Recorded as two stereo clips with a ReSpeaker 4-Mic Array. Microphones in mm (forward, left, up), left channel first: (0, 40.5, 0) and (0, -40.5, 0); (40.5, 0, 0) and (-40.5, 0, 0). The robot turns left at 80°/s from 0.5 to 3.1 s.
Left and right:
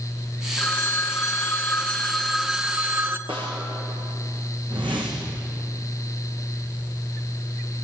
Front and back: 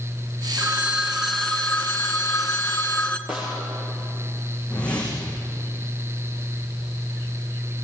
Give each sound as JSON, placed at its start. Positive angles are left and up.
{"t": 0.6, "sound": "a phone ringing", "azimuth_deg": 145, "distance_m": 1.2}
{"t": 3.3, "sound": "a snare drum", "azimuth_deg": -100, "distance_m": 9.0}
{"t": 4.7, "sound": "a whoosh", "azimuth_deg": -80, "distance_m": 6.0}